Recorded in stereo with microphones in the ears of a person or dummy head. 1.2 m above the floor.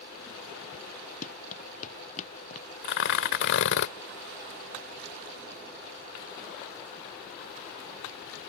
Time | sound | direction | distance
1.2 | running footsteps | 45° left (ahead or behind) | ?
2.8 | tearing paper | 75° left (ahead or behind) | ?